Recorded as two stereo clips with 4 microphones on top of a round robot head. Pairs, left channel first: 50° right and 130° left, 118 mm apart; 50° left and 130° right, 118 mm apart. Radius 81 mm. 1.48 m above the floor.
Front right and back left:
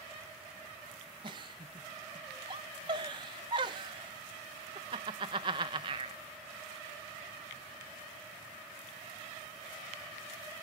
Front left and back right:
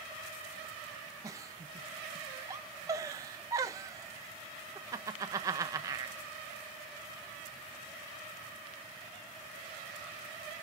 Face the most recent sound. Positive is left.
turn(degrees=175)